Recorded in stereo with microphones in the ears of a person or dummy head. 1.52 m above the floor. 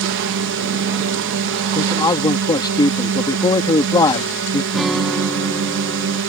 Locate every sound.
0.0 s a drone: 60° right (ahead or behind)
1.8 s a man speaking: 25° left (ahead or behind)
4.7 s a guitar: 5° right (ahead or behind)